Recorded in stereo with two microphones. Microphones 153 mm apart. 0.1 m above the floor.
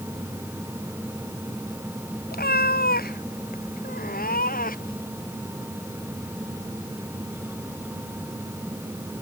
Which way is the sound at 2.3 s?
85° left.